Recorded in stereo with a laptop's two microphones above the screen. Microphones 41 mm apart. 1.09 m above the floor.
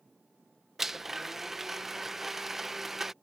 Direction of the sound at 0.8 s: 5° right (ahead or behind).